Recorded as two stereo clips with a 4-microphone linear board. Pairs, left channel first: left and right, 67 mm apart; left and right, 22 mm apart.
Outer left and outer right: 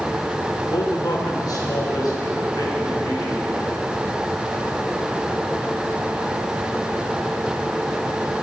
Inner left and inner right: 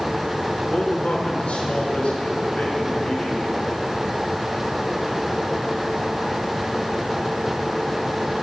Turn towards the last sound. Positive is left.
turn(degrees=70)  # may be behind; listen again after turning